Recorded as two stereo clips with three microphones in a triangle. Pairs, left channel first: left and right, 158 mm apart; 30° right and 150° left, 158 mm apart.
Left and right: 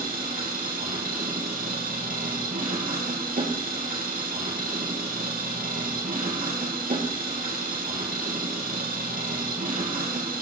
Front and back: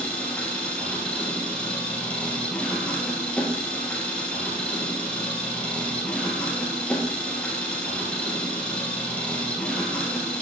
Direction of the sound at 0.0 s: 115° right.